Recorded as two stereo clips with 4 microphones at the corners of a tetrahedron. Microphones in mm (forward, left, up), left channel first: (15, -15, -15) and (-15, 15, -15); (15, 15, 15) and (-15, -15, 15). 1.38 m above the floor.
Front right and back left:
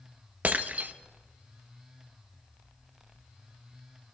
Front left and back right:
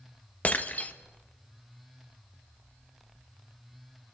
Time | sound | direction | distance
0.4 | breaking glass | 90° left | 0.8 m